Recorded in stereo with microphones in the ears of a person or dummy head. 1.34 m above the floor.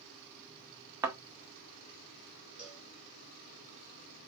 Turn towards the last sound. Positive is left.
turn(degrees=-5)  # may be behind; listen again after turning